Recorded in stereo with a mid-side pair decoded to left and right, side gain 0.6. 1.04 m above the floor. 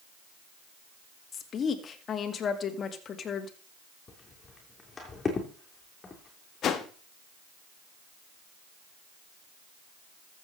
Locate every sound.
1.3 s a woman speaking: 40° left, 1.9 m
4.1 s footsteps: 25° left, 3.5 m
6.6 s a whoosh: 50° left, 1.4 m